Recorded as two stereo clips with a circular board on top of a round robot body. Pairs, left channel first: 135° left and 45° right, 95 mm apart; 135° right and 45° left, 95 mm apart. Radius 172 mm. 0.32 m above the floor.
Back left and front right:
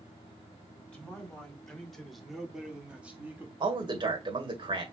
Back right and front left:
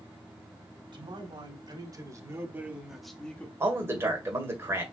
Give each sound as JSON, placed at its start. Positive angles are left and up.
{"t": 0.9, "sound": "a man speaking", "azimuth_deg": 55, "distance_m": 2.5}
{"t": 3.6, "sound": "a man speaking", "azimuth_deg": -15, "distance_m": 2.0}